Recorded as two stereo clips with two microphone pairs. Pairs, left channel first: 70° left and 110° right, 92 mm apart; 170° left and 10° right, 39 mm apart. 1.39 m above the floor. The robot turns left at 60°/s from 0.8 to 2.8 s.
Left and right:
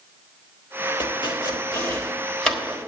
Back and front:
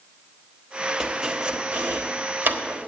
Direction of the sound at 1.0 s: 75° left.